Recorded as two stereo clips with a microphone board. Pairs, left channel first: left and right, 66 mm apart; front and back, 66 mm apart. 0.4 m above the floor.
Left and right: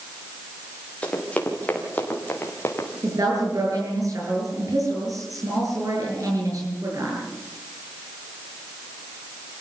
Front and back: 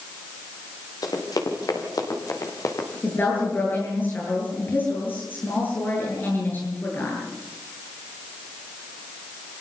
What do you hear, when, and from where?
1.0 s running footsteps: 20° left, 5.5 m; by 2.9 s 35° left, 4.5 m
3.0 s a woman speaking: 60° right, 8 m